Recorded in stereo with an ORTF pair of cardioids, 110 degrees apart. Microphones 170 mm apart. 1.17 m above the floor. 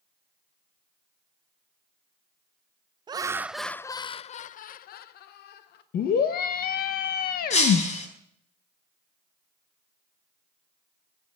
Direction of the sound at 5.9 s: 65° left.